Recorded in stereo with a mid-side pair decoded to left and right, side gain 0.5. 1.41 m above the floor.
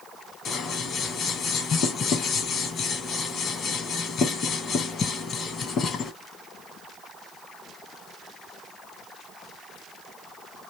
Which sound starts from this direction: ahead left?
Scissors, at 0.5 s.